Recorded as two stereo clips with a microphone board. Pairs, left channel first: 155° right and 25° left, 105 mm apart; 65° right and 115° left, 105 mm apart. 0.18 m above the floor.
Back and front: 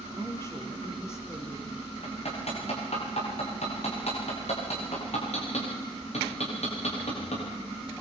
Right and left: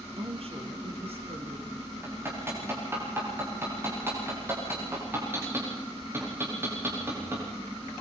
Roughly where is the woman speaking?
Behind left.